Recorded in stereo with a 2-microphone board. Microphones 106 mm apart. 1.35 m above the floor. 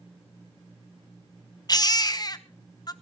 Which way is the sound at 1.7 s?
40° left (ahead or behind).